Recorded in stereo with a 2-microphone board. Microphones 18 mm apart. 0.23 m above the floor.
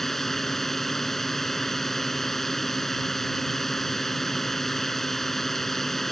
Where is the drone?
20° left (ahead or behind).